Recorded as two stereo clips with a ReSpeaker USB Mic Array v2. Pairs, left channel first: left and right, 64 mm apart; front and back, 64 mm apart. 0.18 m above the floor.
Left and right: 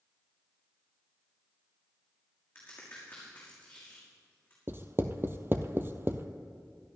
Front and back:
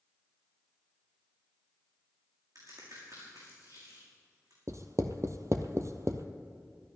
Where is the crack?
160° left, 6 m.